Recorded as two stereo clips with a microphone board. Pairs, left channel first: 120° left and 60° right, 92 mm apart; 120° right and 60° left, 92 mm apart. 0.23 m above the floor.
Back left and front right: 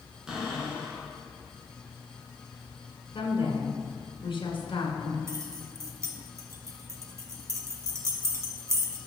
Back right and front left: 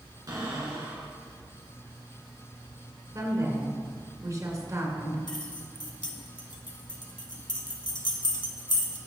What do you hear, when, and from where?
0.3 s a cupboard door: 20° left, 3 m
3.1 s a woman speaking: 105° left, 2.0 m
5.3 s keys jangling: 110° right, 1.2 m